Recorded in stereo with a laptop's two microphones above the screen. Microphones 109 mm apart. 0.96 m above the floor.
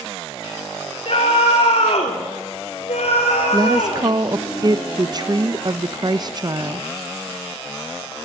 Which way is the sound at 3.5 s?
40° right (ahead or behind).